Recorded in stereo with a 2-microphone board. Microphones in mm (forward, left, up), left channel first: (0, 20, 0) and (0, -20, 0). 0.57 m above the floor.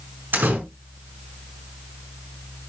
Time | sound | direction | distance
0.3 | a door slam | 55° right (ahead or behind) | 5.5 m